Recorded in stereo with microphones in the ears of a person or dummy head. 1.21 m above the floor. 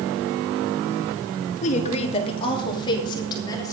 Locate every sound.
1.6 s a woman speaking: 45° left (ahead or behind), 2.0 m; by 3.7 s 20° left (ahead or behind), 4 m